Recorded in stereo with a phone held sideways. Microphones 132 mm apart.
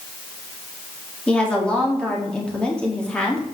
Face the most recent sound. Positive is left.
turn(degrees=10)  # may be behind; listen again after turning